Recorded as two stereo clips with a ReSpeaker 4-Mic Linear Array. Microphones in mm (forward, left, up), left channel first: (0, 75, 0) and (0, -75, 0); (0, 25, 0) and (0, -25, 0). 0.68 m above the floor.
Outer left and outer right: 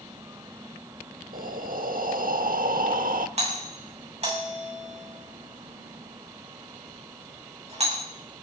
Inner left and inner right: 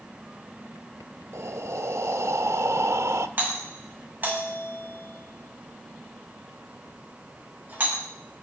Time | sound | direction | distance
1.3 | breathing | 70° right (ahead or behind) | 1.0 m
3.4 | a doorbell | 45° right (ahead or behind) | 7.5 m